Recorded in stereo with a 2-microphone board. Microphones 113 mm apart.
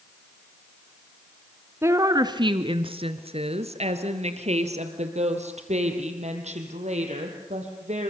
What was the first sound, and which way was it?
A woman speaking, 20° right (ahead or behind).